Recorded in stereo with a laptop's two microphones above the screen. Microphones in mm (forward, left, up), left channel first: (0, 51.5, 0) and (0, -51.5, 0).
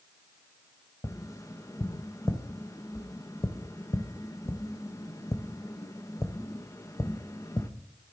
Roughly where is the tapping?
Left.